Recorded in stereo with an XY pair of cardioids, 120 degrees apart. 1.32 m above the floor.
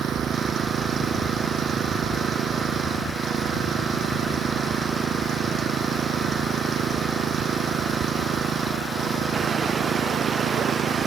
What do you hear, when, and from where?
0.0 s an engine running: 50° right